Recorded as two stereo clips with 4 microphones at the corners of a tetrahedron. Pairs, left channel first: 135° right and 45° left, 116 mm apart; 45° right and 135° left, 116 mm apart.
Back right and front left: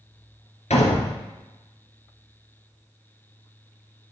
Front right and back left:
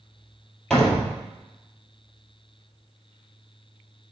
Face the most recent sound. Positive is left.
turn(degrees=-130)